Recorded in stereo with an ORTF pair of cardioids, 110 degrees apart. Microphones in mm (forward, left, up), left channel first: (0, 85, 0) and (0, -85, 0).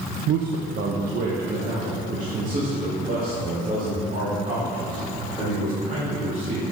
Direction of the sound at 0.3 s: 65° right.